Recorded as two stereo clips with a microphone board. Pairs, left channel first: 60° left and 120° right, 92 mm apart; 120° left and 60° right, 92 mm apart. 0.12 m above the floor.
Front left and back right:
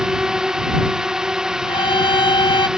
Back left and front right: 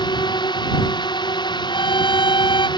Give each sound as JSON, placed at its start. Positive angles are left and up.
{"t": 0.0, "sound": "a drone", "azimuth_deg": 155}
{"t": 1.7, "sound": "a violin", "azimuth_deg": 90}